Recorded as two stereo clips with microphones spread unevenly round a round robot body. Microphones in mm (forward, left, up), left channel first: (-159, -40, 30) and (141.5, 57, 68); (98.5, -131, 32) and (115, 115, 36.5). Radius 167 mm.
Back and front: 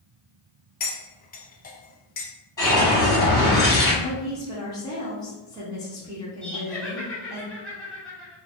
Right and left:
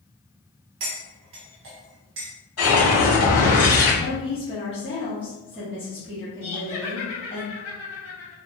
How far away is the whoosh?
About 2.0 m.